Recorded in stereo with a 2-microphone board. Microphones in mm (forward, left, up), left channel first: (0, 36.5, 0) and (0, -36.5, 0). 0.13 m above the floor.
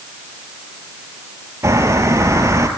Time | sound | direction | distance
1.6 | a bird | 40° right (ahead or behind) | 3 m